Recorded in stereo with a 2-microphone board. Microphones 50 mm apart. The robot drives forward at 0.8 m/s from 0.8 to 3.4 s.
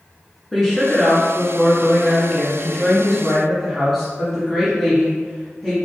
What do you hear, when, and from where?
0.5 s a woman speaking: centre (ahead or behind), 1.7 m; by 5.8 s 5° left (ahead or behind), 1.1 m